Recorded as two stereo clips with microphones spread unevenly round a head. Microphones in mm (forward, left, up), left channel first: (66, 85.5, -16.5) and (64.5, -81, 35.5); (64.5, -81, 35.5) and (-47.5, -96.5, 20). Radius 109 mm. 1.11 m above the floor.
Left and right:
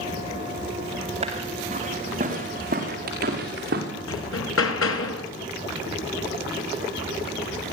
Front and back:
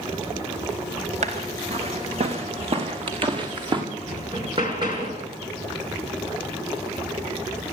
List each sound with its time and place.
1.2 s footsteps: 150° right, 5 m; by 3.8 s 125° right, 6.5 m
4.1 s hammering: 115° left, 3.5 m